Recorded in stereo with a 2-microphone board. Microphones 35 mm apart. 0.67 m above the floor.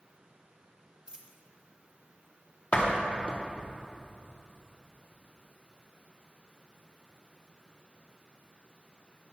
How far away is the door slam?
About 0.8 m.